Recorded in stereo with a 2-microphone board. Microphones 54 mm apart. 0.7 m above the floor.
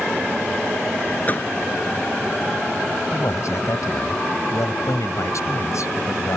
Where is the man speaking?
75° left (ahead or behind).